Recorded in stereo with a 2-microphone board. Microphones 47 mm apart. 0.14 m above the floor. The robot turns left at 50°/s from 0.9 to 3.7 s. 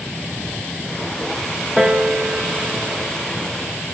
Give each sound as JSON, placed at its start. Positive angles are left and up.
{"t": 1.8, "sound": "a piano", "side_deg": -10, "distance_m": 0.9}